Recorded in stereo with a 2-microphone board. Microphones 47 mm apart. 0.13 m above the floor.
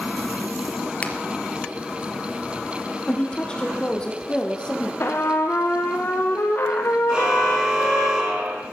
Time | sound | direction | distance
1.0 | a finger snap | 30° left (ahead or behind) | 2.5 m
3.1 | a woman speaking | 20° left (ahead or behind) | 5 m
5.0 | a trumpet | 55° left (ahead or behind) | 3 m
7.1 | a car horn | 15° right (ahead or behind) | 3.5 m